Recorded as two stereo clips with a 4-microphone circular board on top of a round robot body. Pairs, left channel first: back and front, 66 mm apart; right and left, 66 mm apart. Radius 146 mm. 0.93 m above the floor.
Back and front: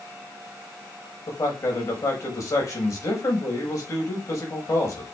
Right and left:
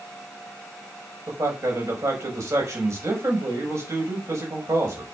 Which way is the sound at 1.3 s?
140° left.